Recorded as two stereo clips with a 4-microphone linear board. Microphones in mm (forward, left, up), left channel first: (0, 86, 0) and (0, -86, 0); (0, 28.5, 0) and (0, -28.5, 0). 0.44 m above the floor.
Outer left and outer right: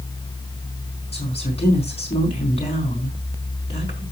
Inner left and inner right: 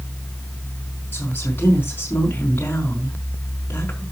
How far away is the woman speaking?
About 4.5 m.